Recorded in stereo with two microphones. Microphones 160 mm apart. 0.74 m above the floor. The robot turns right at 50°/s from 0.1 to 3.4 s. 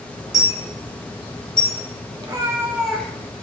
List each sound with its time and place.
0.3 s a dropped coin: 20° right (ahead or behind), 3.5 m; by 1.8 s 50° left (ahead or behind), 3.5 m
2.2 s a cat meowing: 40° right, 1.0 m; by 3.2 s 10° left, 1.0 m